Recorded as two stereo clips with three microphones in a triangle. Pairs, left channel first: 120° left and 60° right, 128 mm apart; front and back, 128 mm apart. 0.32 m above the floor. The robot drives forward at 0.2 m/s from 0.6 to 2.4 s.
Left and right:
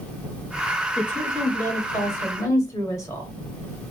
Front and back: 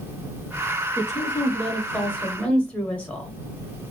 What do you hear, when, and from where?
1.0 s a woman speaking: 50° left, 1.1 m; by 3.3 s 75° left, 1.0 m